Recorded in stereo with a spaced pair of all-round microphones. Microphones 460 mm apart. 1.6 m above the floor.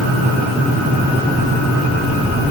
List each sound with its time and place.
Only background noise.